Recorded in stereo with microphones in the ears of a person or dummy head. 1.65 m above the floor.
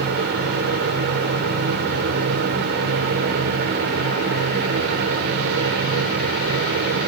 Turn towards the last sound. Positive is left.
turn(degrees=-65)  # may be behind; listen again after turning